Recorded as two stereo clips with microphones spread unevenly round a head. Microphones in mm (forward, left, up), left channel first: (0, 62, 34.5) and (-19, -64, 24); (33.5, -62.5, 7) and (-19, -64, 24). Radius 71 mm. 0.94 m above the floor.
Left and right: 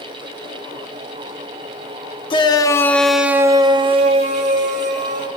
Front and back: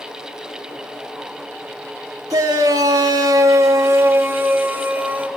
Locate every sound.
2.3 s a shout: 135° left, 1.2 m; by 5.3 s 115° right, 2 m